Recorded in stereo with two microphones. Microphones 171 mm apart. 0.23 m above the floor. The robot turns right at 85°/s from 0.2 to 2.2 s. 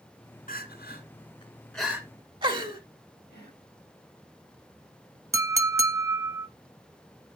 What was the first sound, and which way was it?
Crying, 55° left (ahead or behind).